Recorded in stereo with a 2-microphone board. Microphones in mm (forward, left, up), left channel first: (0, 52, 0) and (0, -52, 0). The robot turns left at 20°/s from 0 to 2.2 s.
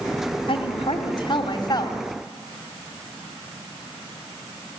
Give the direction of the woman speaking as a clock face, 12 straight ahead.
10 o'clock.